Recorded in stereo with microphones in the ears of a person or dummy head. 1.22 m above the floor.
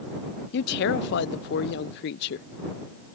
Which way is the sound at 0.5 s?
60° left (ahead or behind).